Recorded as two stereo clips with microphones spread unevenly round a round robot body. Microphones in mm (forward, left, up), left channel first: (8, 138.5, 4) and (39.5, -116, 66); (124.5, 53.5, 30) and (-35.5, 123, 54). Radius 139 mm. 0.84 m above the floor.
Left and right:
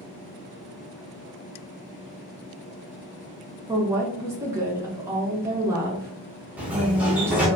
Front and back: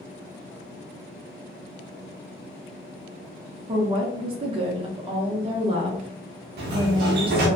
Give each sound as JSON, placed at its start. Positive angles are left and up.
{"t": 3.7, "sound": "a woman speaking", "azimuth_deg": 180, "distance_m": 0.7}
{"t": 6.6, "sound": "a sliding door", "azimuth_deg": -175, "distance_m": 0.5}